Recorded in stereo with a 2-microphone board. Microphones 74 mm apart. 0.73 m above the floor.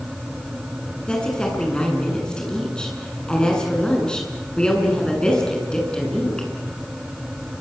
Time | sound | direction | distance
1.1 | a woman speaking | 10° left (ahead or behind) | 8.5 m